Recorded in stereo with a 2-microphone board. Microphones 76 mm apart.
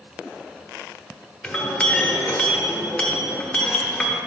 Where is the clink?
20° left (ahead or behind), 1.0 m.